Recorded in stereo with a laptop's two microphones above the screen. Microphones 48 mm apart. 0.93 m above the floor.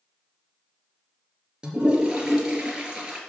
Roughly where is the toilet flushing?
Centre.